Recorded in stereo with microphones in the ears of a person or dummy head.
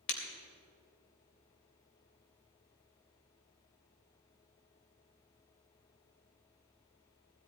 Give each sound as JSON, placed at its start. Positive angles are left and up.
{"t": 0.1, "sound": "breaking glass", "side_deg": 70, "distance_m": 3.0}